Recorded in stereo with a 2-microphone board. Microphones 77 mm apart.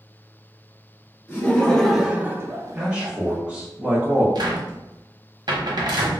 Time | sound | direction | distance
1.3 | laughter | 25° left (ahead or behind) | 0.9 m
2.8 | a man speaking | 15° right (ahead or behind) | 0.7 m
4.3 | a cupboard door | 65° right (ahead or behind) | 0.8 m